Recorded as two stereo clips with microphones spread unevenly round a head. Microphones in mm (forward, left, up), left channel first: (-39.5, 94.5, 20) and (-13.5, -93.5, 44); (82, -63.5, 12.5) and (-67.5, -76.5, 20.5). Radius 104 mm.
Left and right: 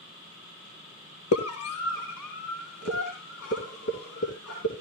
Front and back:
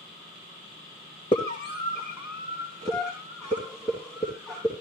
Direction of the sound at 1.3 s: 75° left.